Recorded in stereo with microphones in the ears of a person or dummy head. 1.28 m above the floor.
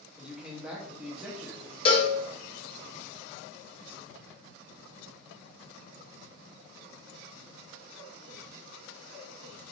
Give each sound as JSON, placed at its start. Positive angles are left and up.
{"t": 0.2, "sound": "a man speaking", "side_deg": -5, "distance_m": 0.8}
{"t": 1.9, "sound": "a cowbell", "side_deg": 30, "distance_m": 0.6}